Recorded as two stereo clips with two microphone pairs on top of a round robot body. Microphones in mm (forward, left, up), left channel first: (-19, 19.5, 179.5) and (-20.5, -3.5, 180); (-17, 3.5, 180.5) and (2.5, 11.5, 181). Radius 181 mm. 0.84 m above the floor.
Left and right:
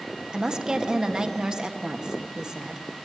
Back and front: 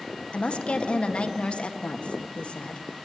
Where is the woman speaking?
145° right, 1.8 m.